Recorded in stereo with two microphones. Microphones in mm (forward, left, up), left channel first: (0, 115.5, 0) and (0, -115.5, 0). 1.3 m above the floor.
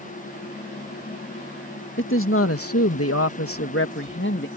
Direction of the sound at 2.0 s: 60° left (ahead or behind).